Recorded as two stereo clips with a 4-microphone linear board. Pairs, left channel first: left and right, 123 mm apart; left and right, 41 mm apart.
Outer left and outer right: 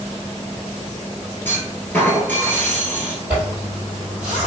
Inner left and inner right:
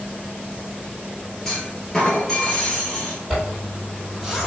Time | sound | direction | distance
1.4 | a clunk | 15° left (ahead or behind) | 1.1 m
3.3 | a zipper | 10° right (ahead or behind) | 1.7 m